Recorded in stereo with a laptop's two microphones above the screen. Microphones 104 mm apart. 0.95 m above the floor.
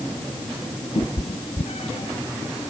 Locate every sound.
0.9 s a cat meowing: 80° left